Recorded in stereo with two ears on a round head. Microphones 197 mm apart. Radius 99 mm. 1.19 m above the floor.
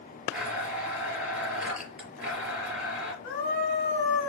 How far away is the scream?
About 2.5 m.